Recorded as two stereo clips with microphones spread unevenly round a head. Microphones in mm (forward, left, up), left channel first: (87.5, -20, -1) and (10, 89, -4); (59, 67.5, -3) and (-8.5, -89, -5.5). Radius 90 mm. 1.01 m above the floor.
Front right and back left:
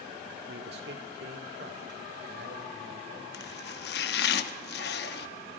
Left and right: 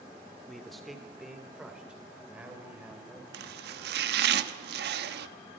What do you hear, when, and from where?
0.5 s a man speaking: 155° left, 2.0 m; by 3.2 s 165° left, 4 m
3.3 s chopping: 80° right, 1.1 m